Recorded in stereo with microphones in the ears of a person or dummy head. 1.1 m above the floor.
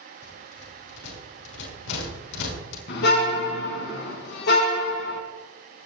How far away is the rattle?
About 5.5 m.